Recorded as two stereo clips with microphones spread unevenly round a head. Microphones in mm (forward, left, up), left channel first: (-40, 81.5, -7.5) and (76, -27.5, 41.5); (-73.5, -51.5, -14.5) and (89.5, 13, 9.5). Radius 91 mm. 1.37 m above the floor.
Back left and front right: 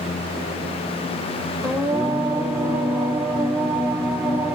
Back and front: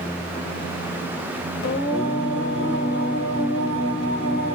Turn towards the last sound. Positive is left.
turn(degrees=-130)